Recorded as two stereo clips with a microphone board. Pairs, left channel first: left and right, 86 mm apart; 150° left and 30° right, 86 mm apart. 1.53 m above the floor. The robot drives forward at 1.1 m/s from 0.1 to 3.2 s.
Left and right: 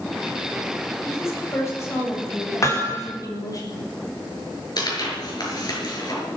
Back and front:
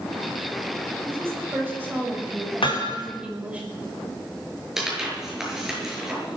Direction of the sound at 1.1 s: 35° left.